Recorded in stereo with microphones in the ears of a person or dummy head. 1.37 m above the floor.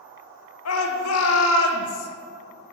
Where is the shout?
70° left (ahead or behind), 0.8 m.